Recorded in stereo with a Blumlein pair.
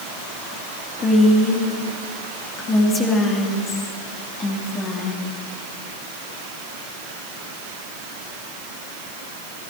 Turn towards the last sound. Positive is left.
turn(degrees=20)